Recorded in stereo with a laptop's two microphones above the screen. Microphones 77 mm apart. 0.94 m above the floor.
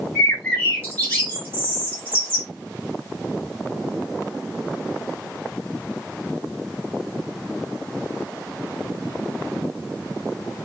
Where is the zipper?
No zipper in this recording.